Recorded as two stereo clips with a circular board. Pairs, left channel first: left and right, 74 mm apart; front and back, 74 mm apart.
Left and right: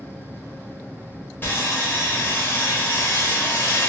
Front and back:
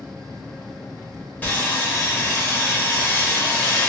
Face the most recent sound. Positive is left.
turn(degrees=55)